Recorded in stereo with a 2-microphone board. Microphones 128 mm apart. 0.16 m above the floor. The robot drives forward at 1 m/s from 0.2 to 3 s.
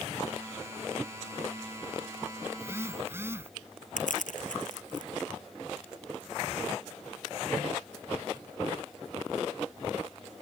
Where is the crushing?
85° left.